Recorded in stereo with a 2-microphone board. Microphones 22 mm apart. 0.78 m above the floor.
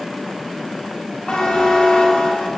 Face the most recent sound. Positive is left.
turn(degrees=65)  # may be behind; listen again after turning